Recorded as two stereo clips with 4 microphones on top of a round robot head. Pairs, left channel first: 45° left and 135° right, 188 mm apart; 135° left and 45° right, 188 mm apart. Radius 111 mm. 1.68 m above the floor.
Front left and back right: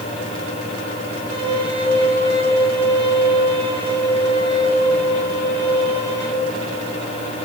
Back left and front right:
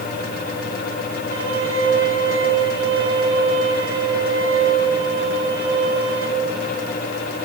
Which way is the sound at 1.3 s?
70° right.